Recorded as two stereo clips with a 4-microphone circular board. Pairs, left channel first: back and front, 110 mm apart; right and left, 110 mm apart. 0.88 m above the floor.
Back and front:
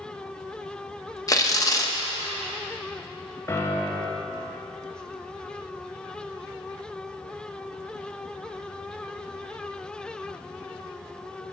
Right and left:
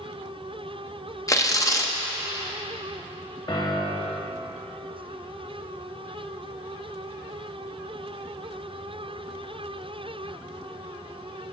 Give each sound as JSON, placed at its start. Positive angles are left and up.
{"t": 1.3, "sound": "tearing paper", "azimuth_deg": -135, "distance_m": 0.7}
{"t": 3.5, "sound": "a piano", "azimuth_deg": -120, "distance_m": 0.9}